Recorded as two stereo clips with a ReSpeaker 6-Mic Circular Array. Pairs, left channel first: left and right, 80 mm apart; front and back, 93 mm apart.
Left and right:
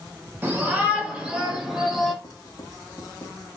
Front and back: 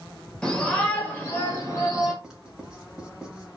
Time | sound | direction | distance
0.4 | a shout | 70° right | 1.5 m
2.2 | writing | 95° left | 1.9 m